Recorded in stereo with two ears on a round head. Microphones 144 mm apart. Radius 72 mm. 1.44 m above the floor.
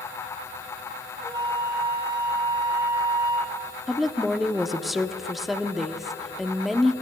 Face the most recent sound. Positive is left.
turn(degrees=0)  # may be behind; listen again after turning